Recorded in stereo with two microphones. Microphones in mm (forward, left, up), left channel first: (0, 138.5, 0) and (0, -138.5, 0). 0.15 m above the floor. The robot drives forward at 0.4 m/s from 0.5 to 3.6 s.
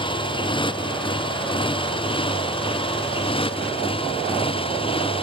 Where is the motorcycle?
20° left (ahead or behind).